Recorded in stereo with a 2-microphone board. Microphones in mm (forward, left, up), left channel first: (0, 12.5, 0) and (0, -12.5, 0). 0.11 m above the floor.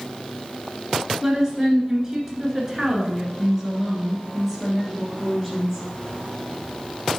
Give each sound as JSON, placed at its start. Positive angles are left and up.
{"t": 1.2, "sound": "a woman speaking", "side_deg": -20, "distance_m": 1.8}